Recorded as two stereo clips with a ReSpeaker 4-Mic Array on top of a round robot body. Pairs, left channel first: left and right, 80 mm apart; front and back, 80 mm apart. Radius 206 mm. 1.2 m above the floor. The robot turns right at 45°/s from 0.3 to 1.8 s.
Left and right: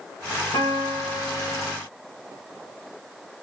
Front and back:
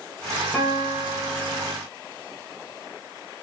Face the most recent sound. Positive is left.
turn(degrees=150)